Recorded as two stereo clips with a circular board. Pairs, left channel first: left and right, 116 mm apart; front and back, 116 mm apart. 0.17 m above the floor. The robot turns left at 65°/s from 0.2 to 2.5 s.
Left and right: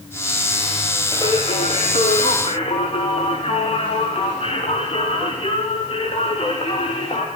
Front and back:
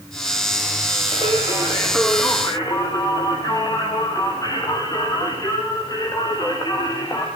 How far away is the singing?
About 4 m.